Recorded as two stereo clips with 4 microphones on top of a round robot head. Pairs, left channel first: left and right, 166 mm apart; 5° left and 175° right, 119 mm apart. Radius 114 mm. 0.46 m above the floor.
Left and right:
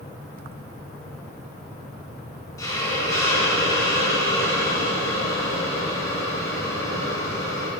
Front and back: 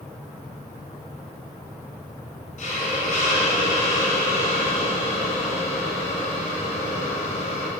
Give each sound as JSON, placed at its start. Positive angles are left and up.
{"t": 2.6, "sound": "a hiss", "azimuth_deg": 20, "distance_m": 2.5}